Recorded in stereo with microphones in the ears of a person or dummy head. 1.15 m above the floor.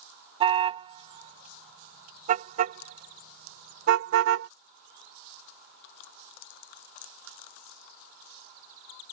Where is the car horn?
35° right (ahead or behind); by 4.5 s 80° right.